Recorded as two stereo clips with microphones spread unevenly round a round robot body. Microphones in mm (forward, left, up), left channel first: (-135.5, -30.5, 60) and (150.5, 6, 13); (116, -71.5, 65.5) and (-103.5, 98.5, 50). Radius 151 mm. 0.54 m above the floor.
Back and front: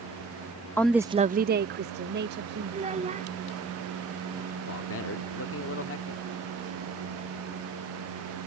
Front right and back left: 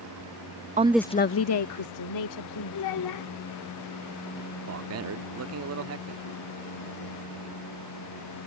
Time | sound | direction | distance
0.8 | a woman speaking | 95° left | ?
2.7 | a child speaking | 60° right | ?
4.7 | a man speaking | 140° left | ?